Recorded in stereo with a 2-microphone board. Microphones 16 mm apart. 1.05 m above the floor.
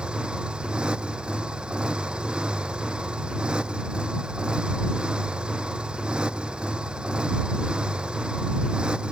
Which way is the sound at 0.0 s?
70° right (ahead or behind).